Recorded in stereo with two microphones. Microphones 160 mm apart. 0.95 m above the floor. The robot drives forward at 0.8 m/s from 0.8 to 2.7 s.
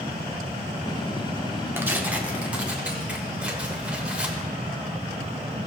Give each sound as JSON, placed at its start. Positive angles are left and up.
{"t": 1.8, "sound": "tearing paper", "side_deg": -15, "distance_m": 0.8}